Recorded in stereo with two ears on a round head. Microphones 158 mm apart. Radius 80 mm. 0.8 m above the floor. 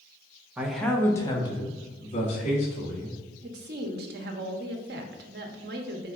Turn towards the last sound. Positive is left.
turn(degrees=-60)  # may be behind; listen again after turning